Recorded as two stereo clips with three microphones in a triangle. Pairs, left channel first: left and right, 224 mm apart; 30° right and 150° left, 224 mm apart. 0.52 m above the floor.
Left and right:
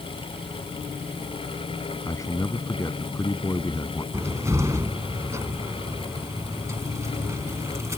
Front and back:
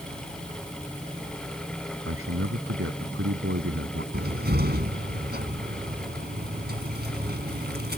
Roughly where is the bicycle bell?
No bicycle bell in this recording.